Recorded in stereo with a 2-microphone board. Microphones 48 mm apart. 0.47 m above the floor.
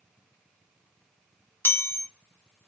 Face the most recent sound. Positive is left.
turn(degrees=45)  # may be behind; listen again after turning